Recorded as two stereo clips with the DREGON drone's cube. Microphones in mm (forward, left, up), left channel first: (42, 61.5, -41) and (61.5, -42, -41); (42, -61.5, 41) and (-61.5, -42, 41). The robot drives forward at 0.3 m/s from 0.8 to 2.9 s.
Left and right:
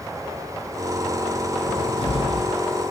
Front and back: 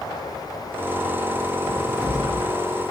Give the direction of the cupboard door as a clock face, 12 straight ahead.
8 o'clock.